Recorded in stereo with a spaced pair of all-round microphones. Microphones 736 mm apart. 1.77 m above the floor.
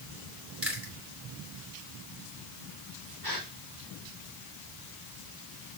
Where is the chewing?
15° right (ahead or behind), 4 m.